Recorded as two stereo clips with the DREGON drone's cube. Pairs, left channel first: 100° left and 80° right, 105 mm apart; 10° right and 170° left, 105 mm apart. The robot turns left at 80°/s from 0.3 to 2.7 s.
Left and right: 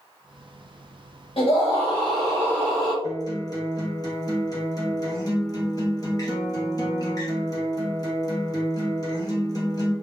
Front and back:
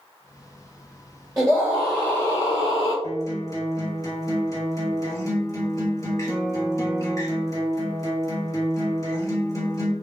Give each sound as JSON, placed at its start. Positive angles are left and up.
{"t": 1.4, "sound": "a scream", "azimuth_deg": 120, "distance_m": 2.0}
{"t": 3.0, "sound": "a guitar", "azimuth_deg": 45, "distance_m": 2.0}